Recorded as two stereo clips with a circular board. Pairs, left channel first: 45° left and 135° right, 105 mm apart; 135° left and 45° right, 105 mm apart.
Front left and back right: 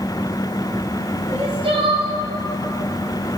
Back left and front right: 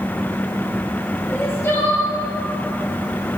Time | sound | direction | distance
1.3 | crying | 160° right | 1.9 m